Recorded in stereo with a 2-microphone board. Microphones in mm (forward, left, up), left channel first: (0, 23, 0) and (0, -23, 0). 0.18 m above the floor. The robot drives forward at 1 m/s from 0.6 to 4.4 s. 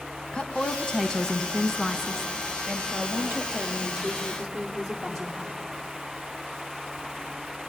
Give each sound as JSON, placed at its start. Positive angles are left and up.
{"t": 0.3, "sound": "a woman speaking", "side_deg": 15, "distance_m": 1.1}